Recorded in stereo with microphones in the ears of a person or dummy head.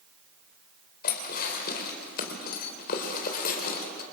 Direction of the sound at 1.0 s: 50° left (ahead or behind).